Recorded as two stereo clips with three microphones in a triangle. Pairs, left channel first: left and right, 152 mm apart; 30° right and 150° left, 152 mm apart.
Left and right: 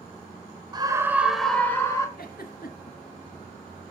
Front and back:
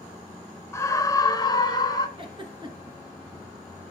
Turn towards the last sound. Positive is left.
turn(degrees=95)